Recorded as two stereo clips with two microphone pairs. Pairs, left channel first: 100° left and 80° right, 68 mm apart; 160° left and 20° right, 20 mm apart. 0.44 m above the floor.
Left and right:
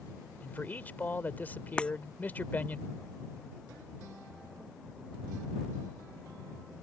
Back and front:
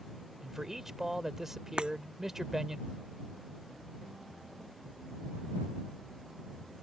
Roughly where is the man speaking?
Ahead left.